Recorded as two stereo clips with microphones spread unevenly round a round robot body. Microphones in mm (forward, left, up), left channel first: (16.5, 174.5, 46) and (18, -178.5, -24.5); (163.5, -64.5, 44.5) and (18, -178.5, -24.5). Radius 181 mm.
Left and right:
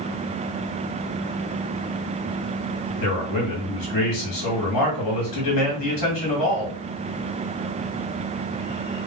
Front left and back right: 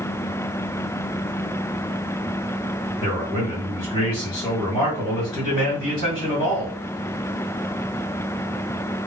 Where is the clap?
No clap in this recording.